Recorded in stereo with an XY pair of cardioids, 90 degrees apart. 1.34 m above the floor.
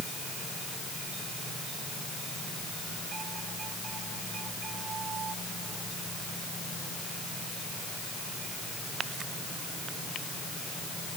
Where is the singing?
No singing in this recording.